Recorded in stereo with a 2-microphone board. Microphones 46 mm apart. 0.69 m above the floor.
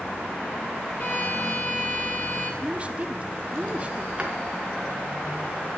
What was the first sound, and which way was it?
A violin, 50° left (ahead or behind).